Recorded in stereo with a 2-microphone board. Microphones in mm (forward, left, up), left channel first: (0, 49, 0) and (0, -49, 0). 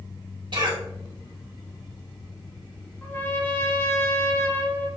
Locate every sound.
0.5 s a cough: 50° right (ahead or behind), 2.5 m
3.0 s a trumpet: 20° left (ahead or behind), 0.7 m